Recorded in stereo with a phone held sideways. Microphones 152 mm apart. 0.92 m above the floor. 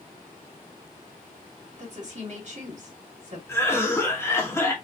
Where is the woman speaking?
50° right (ahead or behind), 3 m.